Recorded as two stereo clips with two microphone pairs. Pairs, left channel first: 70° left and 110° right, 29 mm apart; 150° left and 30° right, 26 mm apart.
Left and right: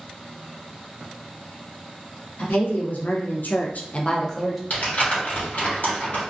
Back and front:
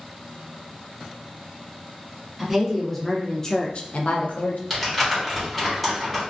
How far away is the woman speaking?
About 1.0 m.